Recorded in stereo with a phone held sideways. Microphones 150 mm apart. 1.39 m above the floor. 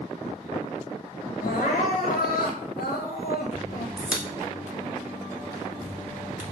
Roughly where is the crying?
Left.